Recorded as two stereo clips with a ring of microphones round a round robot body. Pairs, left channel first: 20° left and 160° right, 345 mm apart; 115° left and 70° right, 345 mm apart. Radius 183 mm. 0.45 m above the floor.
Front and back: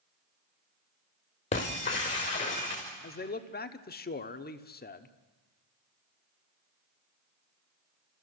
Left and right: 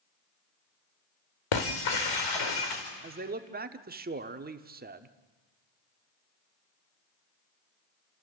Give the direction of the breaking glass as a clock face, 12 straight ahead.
9 o'clock.